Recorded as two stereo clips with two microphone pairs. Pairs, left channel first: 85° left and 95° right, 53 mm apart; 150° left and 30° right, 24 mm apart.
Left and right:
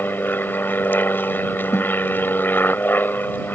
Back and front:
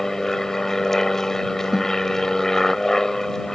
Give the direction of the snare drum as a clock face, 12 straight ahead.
10 o'clock.